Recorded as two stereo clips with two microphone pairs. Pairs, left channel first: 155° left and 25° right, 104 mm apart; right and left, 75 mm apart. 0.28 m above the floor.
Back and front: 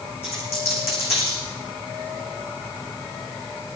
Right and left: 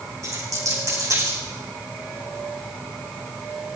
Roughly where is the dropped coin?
Behind left.